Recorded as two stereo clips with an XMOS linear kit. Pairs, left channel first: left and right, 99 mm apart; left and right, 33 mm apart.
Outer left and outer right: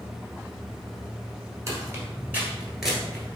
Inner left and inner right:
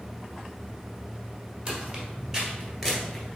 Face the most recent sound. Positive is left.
turn(degrees=10)  # may be behind; listen again after turning